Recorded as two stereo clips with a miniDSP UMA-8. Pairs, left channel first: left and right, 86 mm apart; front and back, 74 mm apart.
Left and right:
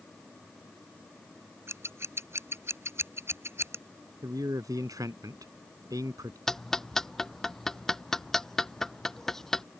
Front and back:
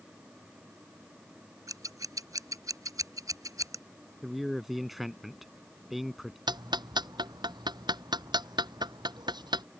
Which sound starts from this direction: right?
A man speaking, at 4.2 s.